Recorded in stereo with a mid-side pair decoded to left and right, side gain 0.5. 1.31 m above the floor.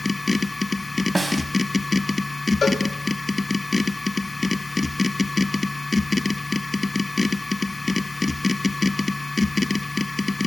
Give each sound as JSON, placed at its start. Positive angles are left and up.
{"t": 0.0, "sound": "a machine running", "azimuth_deg": 25, "distance_m": 1.1}
{"t": 1.1, "sound": "a snare drum", "azimuth_deg": -10, "distance_m": 3.0}
{"t": 2.6, "sound": "a cowbell", "azimuth_deg": 40, "distance_m": 3.5}